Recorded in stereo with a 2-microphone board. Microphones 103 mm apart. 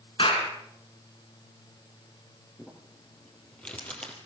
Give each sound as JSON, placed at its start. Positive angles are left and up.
{"t": 0.2, "sound": "a clap", "side_deg": 55, "distance_m": 4.5}
{"t": 2.6, "sound": "crumpling", "side_deg": 10, "distance_m": 4.0}